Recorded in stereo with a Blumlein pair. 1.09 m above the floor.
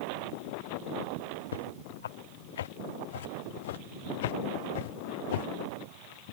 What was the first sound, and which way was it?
Footsteps, 65° left.